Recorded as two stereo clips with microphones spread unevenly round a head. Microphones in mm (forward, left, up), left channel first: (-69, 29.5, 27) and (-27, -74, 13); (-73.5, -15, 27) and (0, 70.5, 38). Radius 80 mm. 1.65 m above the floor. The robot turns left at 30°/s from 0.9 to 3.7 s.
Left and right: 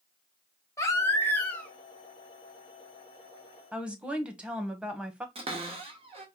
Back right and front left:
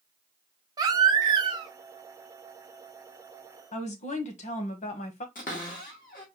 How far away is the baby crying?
About 0.5 m.